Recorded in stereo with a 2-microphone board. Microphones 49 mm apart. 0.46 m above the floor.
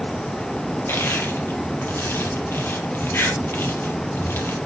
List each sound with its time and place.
0.9 s crushing: 55° left (ahead or behind), 3.5 m